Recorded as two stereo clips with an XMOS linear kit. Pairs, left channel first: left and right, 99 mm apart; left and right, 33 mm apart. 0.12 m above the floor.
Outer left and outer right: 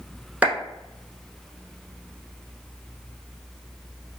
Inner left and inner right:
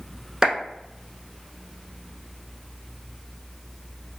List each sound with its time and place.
0.4 s a clap: 15° right (ahead or behind), 0.9 m